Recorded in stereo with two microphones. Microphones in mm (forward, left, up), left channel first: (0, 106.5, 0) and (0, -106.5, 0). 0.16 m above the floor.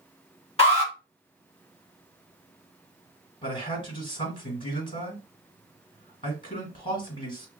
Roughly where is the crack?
I don't hear a crack.